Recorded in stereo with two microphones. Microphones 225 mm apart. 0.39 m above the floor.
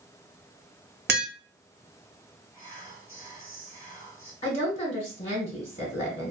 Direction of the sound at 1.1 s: 50° right (ahead or behind).